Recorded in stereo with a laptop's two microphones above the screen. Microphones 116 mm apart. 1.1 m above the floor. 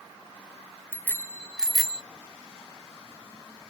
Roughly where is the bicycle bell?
Left.